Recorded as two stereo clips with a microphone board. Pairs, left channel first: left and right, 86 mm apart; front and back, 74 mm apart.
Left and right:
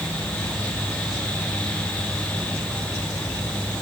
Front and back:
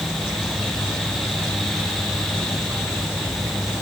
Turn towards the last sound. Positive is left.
No sound to turn to.